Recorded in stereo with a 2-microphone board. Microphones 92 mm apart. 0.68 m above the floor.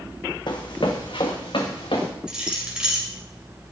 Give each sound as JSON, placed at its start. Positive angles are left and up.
{"t": 0.5, "sound": "running footsteps", "side_deg": 55, "distance_m": 1.7}
{"t": 2.3, "sound": "keys jangling", "side_deg": -10, "distance_m": 2.5}